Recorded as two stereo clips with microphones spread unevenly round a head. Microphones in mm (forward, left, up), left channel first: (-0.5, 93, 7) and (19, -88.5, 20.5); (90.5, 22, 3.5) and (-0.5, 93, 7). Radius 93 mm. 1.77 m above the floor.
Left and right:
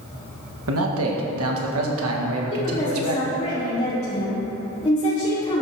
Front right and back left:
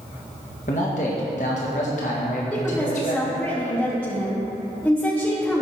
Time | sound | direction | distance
0.7 | a man speaking | 85° right | 1.9 m
2.5 | a woman speaking | 40° left | 2.5 m